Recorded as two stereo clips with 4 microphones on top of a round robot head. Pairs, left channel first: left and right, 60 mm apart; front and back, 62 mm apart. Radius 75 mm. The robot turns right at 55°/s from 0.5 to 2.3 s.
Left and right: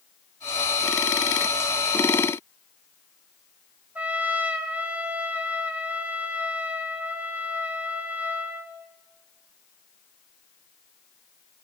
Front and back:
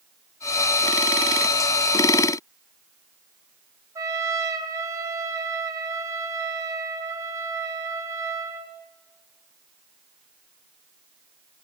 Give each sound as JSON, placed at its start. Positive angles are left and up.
{"t": 4.0, "sound": "a trumpet", "azimuth_deg": -155, "distance_m": 2.0}